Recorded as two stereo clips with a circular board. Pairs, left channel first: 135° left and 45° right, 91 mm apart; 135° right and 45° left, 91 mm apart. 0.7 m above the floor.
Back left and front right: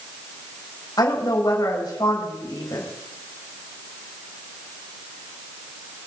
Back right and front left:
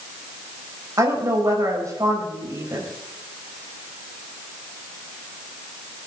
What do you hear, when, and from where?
1.0 s a woman speaking: 95° left, 4.5 m